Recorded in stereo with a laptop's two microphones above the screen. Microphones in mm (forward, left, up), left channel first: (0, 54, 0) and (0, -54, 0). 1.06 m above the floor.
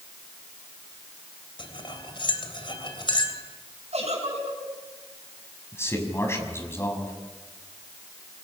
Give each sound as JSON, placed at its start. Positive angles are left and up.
{"t": 1.6, "sound": "cutlery clinking", "side_deg": 50, "distance_m": 3.0}
{"t": 3.9, "sound": "a giggle", "side_deg": -80, "distance_m": 6.5}
{"t": 5.7, "sound": "a man speaking", "side_deg": 25, "distance_m": 6.5}